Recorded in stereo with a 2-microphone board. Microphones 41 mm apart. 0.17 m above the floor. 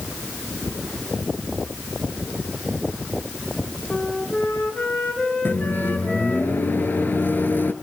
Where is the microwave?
55° left (ahead or behind), 2 m.